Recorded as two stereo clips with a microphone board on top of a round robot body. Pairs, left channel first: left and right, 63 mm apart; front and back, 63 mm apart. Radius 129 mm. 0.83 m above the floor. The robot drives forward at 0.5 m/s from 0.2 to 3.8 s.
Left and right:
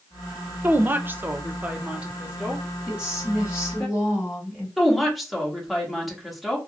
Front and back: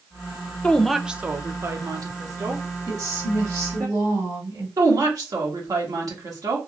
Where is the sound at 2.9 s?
165° right, 2.5 m.